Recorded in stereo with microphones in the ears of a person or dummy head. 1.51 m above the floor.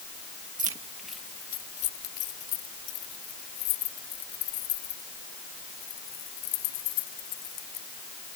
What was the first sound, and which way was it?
Keys jangling, 25° right (ahead or behind).